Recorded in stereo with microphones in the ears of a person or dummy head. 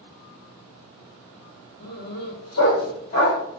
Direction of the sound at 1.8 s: 50° left (ahead or behind).